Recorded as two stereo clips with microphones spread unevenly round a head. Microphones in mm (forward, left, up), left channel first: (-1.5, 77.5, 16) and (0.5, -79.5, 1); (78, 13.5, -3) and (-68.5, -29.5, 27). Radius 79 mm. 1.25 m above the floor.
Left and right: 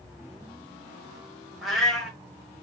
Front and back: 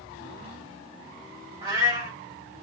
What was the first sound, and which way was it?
A cat meowing, 170° left.